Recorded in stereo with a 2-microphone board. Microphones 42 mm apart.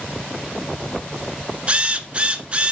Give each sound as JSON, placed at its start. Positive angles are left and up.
{"t": 1.7, "sound": "a drill", "side_deg": -30, "distance_m": 1.0}